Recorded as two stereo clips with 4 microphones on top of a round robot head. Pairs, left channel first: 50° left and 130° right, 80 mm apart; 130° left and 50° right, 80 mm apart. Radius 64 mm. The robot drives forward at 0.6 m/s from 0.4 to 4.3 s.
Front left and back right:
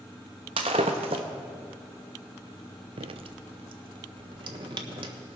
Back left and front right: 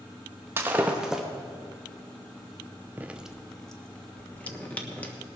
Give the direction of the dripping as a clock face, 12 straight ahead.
4 o'clock.